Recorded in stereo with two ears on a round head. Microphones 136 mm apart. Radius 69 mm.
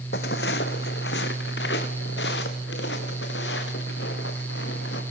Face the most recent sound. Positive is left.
turn(degrees=80)